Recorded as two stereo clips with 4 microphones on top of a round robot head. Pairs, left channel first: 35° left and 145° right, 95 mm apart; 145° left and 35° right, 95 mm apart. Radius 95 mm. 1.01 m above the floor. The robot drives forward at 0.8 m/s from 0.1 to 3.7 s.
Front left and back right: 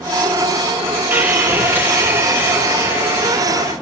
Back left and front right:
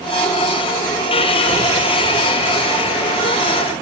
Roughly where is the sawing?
Behind left.